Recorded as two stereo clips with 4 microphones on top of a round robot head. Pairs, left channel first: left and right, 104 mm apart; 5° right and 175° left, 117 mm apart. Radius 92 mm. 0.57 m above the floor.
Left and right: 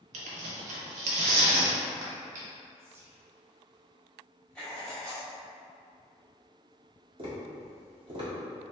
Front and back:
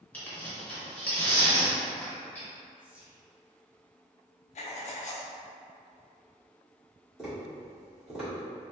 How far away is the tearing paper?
About 0.5 m.